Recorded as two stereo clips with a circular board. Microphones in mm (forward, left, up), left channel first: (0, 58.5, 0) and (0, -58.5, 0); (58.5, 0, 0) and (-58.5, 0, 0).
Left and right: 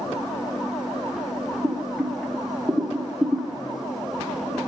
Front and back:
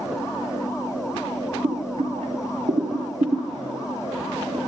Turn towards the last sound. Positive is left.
turn(degrees=170)